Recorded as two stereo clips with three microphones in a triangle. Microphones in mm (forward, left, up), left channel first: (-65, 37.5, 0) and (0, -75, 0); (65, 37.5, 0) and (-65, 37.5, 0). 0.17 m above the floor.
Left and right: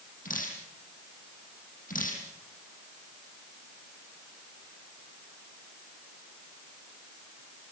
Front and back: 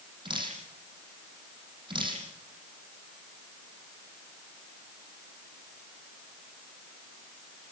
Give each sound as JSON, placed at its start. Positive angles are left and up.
{"t": 0.2, "sound": "dripping", "azimuth_deg": 125, "distance_m": 7.5}